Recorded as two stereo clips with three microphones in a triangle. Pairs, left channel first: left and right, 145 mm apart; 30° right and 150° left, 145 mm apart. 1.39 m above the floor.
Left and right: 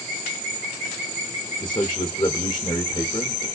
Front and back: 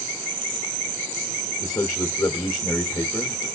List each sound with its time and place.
1.6 s a man speaking: 35° left, 0.7 m